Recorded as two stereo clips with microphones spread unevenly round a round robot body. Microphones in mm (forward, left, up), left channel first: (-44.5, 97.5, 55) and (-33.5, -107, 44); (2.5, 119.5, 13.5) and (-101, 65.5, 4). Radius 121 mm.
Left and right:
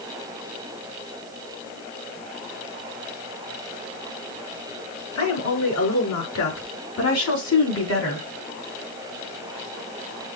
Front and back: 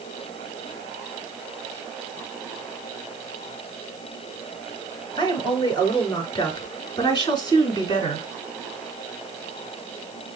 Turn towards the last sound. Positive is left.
turn(degrees=80)